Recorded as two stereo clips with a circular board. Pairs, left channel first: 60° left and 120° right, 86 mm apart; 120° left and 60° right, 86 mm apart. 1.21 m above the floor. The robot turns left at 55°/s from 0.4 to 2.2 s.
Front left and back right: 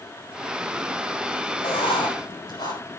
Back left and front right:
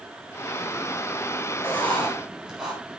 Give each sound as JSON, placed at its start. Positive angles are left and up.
{"t": 1.6, "sound": "writing", "azimuth_deg": 55, "distance_m": 8.0}